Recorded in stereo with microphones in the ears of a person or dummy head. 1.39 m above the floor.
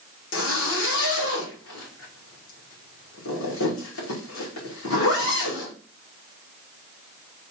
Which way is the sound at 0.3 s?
85° left.